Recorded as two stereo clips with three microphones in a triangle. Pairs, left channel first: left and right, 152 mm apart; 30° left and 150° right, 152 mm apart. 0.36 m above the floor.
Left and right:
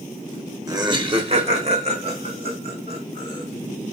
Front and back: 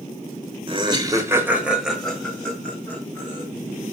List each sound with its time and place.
0.7 s laughter: 140° right, 1.3 m; by 3.4 s 45° right, 3 m